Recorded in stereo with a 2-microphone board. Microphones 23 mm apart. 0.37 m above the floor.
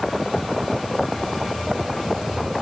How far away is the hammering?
No hammering in this recording.